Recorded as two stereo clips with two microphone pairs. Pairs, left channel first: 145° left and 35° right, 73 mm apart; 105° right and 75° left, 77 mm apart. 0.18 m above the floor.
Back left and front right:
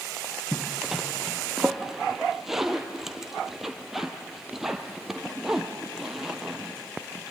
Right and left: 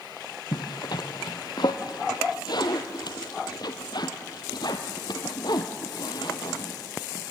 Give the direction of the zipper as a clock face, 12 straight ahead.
4 o'clock.